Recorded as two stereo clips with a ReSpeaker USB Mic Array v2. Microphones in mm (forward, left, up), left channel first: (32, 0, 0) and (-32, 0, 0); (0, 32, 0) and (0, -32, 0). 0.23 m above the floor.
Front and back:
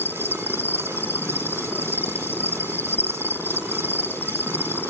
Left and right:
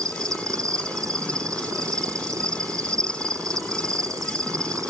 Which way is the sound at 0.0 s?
55° right.